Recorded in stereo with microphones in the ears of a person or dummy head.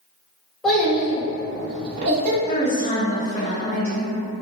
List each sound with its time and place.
0.6 s a child speaking: centre (ahead or behind), 1.2 m; by 2.4 s 55° right (ahead or behind), 0.9 m
2.5 s a woman speaking: 10° left (ahead or behind), 1.4 m